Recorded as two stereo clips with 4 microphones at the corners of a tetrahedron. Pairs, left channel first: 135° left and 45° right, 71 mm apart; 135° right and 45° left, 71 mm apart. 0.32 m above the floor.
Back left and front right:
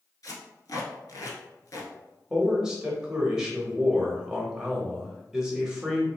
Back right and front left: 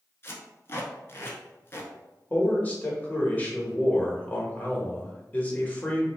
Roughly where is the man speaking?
Right.